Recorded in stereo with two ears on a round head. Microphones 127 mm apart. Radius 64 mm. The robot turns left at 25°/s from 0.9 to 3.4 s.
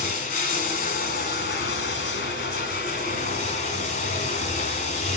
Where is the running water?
115° left, 1.4 m; by 5.2 s 55° left, 1.4 m.